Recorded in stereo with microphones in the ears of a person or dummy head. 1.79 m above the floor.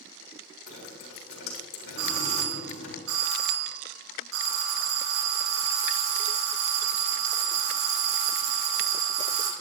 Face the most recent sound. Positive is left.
turn(degrees=-80)